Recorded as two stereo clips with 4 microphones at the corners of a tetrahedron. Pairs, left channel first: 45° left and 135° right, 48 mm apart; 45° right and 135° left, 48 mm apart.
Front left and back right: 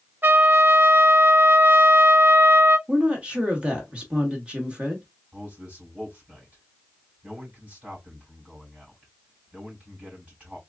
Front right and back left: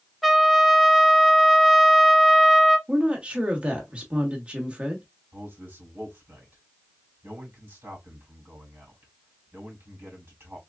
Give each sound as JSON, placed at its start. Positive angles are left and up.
{"t": 0.2, "sound": "a trumpet", "azimuth_deg": -140, "distance_m": 0.7}
{"t": 2.9, "sound": "a woman speaking", "azimuth_deg": 175, "distance_m": 1.0}
{"t": 5.3, "sound": "a man speaking", "azimuth_deg": 165, "distance_m": 2.5}